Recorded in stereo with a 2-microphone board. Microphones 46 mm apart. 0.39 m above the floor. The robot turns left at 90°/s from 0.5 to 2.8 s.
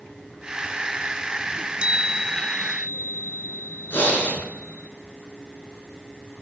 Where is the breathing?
55° left (ahead or behind), 4 m.